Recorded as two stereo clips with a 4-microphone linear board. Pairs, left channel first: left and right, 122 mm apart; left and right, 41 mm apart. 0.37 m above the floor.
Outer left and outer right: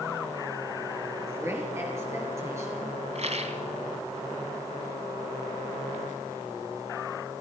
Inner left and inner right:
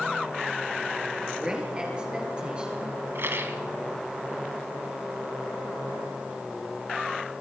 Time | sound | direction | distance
1.3 | a woman speaking | 20° right (ahead or behind) | 7 m
3.1 | a rattle | 60° right (ahead or behind) | 1.7 m